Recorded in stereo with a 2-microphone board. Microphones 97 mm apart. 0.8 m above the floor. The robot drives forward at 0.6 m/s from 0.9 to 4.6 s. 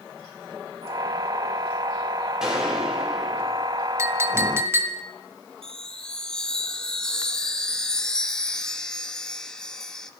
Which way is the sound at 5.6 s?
5° left (ahead or behind).